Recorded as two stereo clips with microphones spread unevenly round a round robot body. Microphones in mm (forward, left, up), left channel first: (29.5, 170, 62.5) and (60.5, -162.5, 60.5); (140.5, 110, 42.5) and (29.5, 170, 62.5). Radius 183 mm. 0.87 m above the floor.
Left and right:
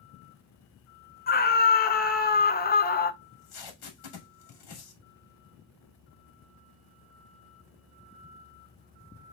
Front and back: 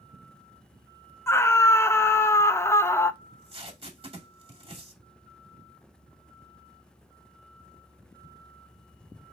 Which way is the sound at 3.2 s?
100° left.